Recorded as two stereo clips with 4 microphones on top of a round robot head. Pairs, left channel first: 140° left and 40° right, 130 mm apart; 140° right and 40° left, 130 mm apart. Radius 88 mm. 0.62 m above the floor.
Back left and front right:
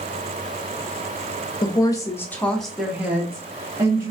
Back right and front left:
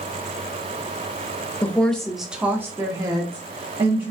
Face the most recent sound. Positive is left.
turn(degrees=10)